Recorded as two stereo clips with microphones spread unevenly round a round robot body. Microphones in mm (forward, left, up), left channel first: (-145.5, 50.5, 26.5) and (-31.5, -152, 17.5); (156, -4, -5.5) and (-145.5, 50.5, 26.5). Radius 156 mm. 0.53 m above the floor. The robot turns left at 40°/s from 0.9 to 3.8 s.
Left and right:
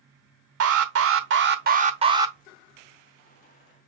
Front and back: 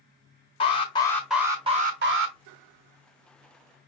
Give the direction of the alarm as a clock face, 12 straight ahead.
3 o'clock.